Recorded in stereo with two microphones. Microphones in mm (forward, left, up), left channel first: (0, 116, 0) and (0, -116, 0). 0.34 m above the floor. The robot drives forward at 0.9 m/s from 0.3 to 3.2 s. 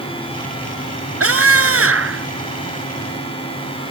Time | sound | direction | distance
1.2 | a scream | 75° right (ahead or behind) | ?